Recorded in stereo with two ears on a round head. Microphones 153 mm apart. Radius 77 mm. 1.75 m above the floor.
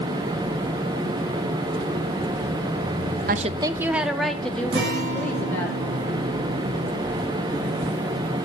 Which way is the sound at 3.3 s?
55° right (ahead or behind).